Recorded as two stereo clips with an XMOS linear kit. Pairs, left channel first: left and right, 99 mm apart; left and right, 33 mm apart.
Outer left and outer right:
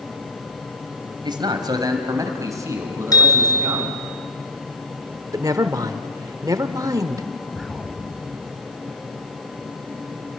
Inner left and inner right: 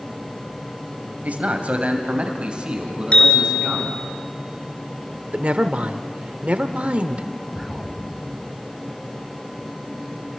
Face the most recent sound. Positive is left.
turn(degrees=0)  # may be behind; listen again after turning